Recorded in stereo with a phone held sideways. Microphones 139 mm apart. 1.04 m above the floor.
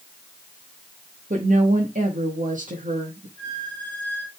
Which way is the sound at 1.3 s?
60° right (ahead or behind).